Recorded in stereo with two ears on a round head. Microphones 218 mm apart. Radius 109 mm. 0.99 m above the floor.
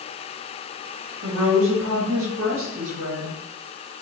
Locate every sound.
1.2 s a woman speaking: 60° right (ahead or behind), 1.6 m